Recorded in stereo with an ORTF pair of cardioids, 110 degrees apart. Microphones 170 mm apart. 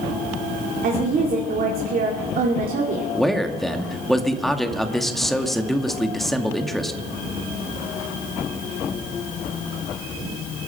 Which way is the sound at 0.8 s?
60° right.